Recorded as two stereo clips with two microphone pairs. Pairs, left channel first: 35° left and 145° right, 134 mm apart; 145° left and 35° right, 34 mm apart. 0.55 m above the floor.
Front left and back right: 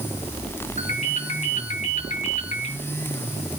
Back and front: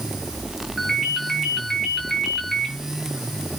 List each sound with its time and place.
0.8 s a ringtone: 65° left, 4.5 m